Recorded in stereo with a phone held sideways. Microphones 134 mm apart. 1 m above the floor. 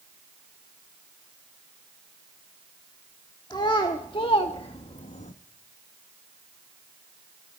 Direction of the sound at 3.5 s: 35° left (ahead or behind).